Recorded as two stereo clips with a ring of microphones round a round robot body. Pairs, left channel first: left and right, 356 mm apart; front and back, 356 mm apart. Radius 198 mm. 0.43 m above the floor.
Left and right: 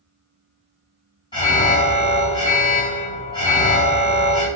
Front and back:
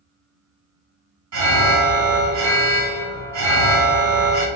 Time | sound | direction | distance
1.3 | an alarm | 165° left | 1.1 m